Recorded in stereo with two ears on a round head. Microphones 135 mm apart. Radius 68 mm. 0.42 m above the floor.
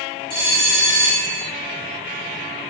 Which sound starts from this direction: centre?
A bell, at 0.3 s.